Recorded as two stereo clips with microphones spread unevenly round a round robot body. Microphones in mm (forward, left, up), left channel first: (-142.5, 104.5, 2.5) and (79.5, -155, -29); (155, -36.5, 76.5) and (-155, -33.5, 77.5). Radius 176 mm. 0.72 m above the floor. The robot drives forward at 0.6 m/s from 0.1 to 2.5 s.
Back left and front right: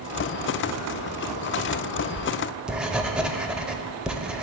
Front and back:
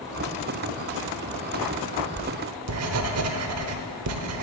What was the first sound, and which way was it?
Writing, 125° right.